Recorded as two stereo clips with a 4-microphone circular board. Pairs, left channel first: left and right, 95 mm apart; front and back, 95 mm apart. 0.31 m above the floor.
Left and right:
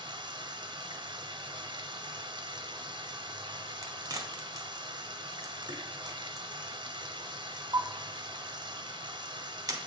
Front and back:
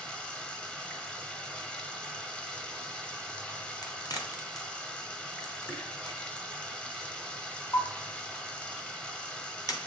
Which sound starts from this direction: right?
Running water, at 0.0 s.